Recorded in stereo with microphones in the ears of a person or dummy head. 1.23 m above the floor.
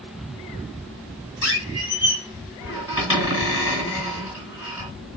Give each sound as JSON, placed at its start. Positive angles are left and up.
{"t": 1.4, "sound": "a squeak", "side_deg": -20, "distance_m": 2.0}